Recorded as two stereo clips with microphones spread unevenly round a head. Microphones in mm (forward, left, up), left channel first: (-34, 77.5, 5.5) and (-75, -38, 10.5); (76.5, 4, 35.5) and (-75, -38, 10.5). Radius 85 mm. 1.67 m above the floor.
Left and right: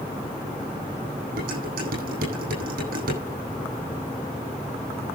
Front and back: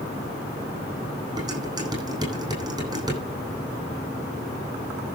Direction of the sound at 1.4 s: 100° right.